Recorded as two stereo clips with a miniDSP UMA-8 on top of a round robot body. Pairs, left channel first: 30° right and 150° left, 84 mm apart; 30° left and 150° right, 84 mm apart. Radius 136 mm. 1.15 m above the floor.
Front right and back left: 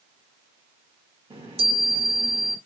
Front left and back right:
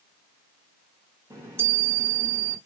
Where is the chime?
150° left, 1.4 m.